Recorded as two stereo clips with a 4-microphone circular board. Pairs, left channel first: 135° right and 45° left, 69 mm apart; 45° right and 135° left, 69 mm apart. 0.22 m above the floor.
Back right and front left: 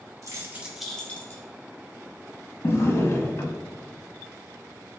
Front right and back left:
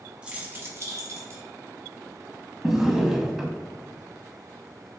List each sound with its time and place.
0.2 s keys jangling: 65° left, 1.1 m; by 1.4 s 175° left, 1.4 m
2.6 s a drawer: 150° right, 0.6 m